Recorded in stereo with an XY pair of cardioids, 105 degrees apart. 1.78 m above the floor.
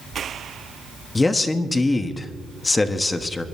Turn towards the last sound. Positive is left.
turn(degrees=25)